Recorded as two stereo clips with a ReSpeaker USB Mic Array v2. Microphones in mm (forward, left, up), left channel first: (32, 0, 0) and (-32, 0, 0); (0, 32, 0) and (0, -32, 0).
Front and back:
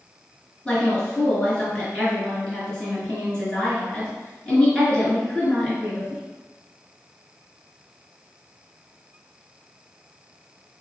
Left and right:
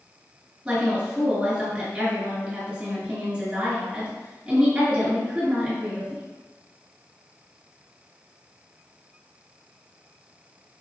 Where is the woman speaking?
45° right, 1.7 m.